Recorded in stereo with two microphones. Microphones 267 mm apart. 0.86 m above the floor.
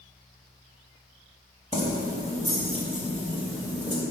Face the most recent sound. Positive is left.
turn(degrees=15)  # may be behind; listen again after turning